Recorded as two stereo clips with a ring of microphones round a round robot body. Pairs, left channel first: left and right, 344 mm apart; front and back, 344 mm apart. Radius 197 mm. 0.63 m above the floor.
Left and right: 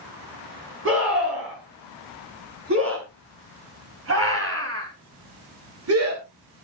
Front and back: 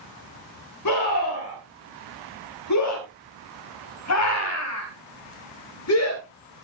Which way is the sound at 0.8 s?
35° right.